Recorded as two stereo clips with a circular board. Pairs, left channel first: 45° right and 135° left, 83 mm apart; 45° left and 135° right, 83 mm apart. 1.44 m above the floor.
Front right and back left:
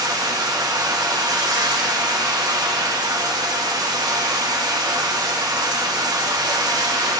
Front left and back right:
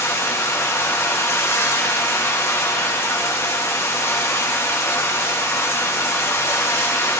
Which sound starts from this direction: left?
Running water, at 0.0 s.